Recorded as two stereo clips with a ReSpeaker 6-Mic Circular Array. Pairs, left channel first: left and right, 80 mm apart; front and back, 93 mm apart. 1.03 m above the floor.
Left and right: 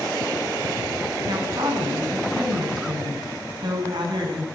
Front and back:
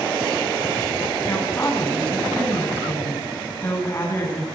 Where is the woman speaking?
65° right, 7 m.